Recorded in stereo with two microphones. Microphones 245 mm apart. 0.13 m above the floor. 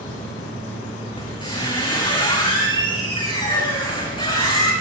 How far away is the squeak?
About 5.5 m.